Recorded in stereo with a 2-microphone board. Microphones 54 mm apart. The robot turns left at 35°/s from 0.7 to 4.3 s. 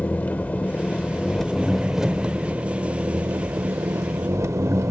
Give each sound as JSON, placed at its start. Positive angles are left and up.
{"t": 0.0, "sound": "an engine running", "azimuth_deg": 35, "distance_m": 0.7}